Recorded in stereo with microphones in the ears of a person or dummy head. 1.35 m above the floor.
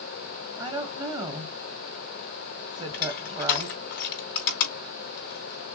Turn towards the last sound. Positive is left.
turn(degrees=55)  # may be behind; listen again after turning